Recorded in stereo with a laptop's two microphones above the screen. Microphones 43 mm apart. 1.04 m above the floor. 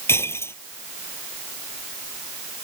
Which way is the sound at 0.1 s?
75° left (ahead or behind).